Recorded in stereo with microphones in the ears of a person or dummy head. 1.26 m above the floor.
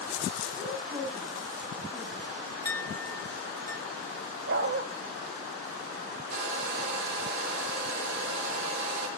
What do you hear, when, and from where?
0.6 s a woman speaking: 15° right (ahead or behind), 8.5 m
2.6 s a clink: 15° left (ahead or behind), 1.5 m
4.5 s a dog barking: 60° right (ahead or behind), 2.5 m
6.3 s a hair dryer: 60° right (ahead or behind), 5.5 m